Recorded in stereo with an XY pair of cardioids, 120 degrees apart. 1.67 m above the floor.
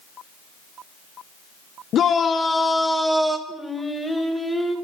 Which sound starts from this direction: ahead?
Singing, at 3.5 s.